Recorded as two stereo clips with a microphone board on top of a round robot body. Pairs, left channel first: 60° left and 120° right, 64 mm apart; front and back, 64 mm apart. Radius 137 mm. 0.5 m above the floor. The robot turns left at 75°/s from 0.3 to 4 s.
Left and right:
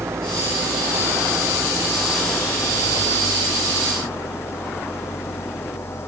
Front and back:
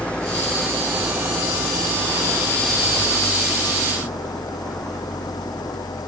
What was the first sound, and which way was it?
An engine running, 75° right.